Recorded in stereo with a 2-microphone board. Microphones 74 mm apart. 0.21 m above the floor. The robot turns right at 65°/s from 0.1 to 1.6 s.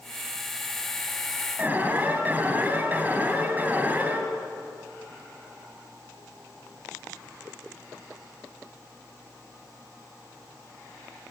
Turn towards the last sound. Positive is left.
turn(degrees=-20)  # may be behind; listen again after turning